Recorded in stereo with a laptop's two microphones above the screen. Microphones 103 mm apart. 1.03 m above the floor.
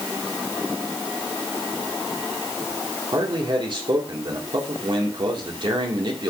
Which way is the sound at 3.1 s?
50° right (ahead or behind).